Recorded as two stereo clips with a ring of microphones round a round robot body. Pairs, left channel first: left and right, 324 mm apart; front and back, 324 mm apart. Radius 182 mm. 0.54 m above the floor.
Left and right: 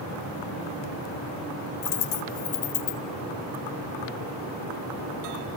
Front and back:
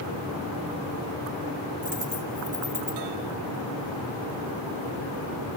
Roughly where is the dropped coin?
Left.